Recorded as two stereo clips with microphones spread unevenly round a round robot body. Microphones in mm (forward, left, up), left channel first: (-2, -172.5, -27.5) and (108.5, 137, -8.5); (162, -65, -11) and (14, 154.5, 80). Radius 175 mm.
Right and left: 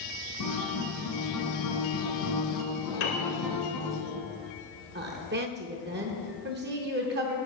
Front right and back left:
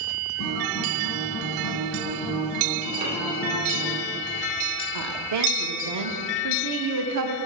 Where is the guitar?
80° right, 1.8 m.